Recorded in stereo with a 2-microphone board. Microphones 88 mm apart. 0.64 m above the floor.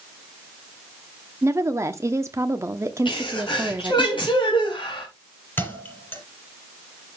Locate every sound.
1.4 s a woman speaking: 35° right (ahead or behind), 1.0 m
3.0 s a sneeze: 75° left (ahead or behind), 4 m
5.6 s a thud: 25° left (ahead or behind), 4.5 m